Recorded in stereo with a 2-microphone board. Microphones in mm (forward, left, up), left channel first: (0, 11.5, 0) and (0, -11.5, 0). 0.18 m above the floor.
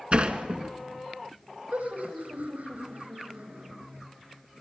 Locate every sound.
0.1 s a sliding door: 50° right (ahead or behind), 1.6 m
1.7 s laughter: 80° right, 8.5 m